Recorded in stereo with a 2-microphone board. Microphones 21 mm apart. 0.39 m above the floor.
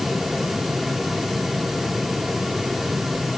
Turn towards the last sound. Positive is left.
No sound to turn to.